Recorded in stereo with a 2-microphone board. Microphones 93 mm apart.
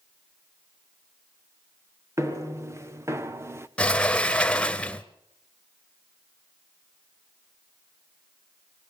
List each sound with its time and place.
2.2 s footsteps: 35° right (ahead or behind), 2.0 m; by 3.7 s 30° right (ahead or behind), 1.2 m
3.8 s a sliding door: 15° left (ahead or behind), 0.9 m